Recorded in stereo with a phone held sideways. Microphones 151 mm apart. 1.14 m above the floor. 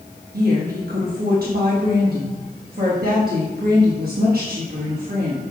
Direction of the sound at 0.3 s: 70° right (ahead or behind).